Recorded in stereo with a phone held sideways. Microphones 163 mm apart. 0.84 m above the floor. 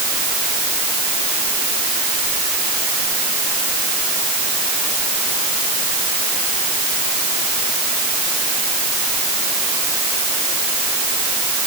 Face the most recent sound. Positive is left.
No sound to turn to.